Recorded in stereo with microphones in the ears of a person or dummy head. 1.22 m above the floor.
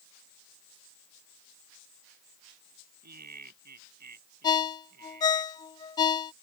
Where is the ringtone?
25° left (ahead or behind).